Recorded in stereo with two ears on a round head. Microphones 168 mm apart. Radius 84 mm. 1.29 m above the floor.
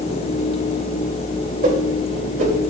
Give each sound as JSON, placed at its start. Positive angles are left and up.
{"t": 1.6, "sound": "a whoosh", "side_deg": -40, "distance_m": 3.0}